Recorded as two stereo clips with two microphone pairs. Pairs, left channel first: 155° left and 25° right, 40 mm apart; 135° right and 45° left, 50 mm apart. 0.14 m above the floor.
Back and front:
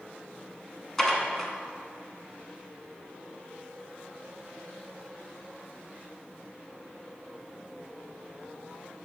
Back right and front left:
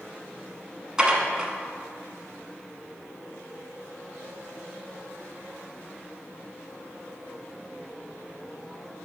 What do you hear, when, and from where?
1.0 s dishes clattering: 95° left, 0.9 m